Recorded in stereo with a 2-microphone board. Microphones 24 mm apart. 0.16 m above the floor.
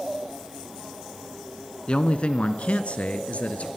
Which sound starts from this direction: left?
A man speaking, at 1.9 s.